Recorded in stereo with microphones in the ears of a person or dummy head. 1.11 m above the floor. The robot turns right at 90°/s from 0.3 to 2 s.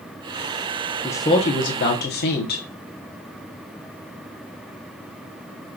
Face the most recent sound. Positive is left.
turn(degrees=100)